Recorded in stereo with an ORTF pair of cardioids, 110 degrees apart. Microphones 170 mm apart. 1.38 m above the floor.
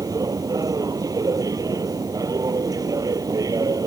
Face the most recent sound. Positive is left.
turn(degrees=-20)